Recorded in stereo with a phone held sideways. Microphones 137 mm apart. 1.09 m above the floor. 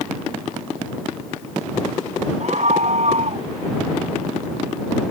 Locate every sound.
2.4 s a scream: 60° right (ahead or behind); by 3.5 s 55° right (ahead or behind)